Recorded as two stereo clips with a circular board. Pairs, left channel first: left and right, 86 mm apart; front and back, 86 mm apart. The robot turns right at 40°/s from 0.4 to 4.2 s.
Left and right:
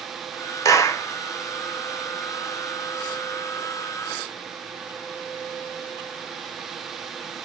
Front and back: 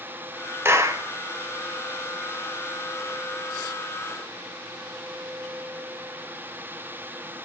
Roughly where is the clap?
Behind left.